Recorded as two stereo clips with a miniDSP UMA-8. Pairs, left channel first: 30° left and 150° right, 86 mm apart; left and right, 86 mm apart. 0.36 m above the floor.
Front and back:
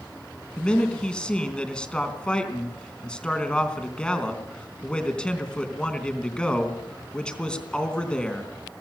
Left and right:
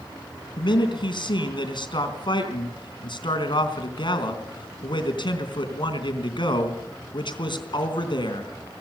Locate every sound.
0.6 s a man speaking: 110° left, 3.5 m